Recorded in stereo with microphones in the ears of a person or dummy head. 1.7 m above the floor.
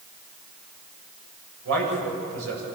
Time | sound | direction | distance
1.6 | a man speaking | 85° right | 9.5 m